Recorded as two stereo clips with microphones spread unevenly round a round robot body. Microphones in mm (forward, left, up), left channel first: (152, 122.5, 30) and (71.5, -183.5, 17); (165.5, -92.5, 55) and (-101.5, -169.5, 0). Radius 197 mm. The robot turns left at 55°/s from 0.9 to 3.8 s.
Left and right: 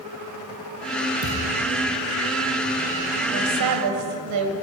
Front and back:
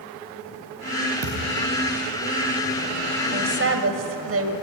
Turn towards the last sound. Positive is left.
turn(degrees=-135)